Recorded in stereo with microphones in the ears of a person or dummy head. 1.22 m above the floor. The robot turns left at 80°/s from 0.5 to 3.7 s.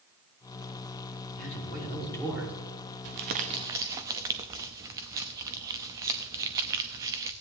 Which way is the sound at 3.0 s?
105° right.